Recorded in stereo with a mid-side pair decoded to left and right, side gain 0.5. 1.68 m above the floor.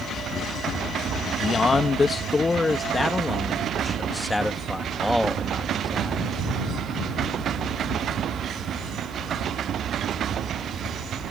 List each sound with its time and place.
1.4 s a man speaking: 35° left; by 6.2 s straight ahead